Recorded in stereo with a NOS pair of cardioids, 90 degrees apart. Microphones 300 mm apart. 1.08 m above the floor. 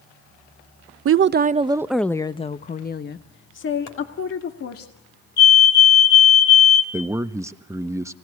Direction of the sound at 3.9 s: 60° left.